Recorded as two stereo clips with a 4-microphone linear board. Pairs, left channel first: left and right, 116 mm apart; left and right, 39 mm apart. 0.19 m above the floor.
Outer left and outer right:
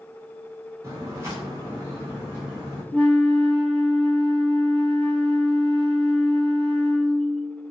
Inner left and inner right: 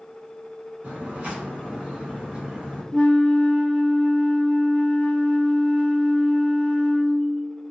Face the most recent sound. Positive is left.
turn(degrees=10)  # may be behind; listen again after turning